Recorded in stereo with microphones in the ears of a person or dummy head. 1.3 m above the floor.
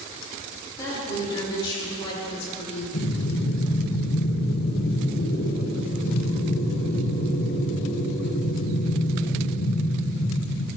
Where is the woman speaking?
15° left (ahead or behind), 4 m; by 2.8 s 40° left (ahead or behind), 4 m.